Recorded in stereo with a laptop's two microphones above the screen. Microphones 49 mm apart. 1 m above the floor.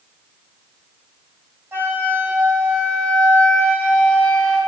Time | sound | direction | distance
1.7 | a flute | 40° right (ahead or behind) | 1.9 m